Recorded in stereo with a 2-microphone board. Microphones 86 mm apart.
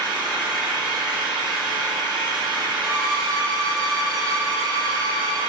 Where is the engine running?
65° right (ahead or behind), 1.3 m.